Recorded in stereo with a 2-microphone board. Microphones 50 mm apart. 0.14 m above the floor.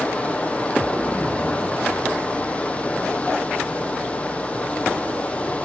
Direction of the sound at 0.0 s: 25° left (ahead or behind).